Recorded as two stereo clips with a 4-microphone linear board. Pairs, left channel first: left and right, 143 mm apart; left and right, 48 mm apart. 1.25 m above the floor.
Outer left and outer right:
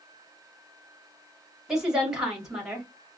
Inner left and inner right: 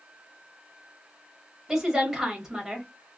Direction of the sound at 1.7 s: 5° right (ahead or behind).